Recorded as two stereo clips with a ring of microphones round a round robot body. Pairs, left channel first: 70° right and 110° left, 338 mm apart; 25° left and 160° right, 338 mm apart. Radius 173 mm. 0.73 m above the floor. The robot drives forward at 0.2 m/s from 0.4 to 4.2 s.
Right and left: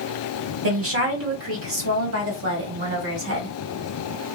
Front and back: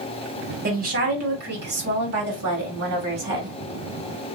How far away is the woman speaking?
About 1.4 m.